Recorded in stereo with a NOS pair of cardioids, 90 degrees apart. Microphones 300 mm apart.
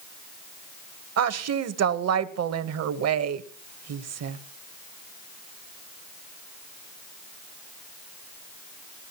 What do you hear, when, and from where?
1.2 s a woman speaking: 55° right, 1.1 m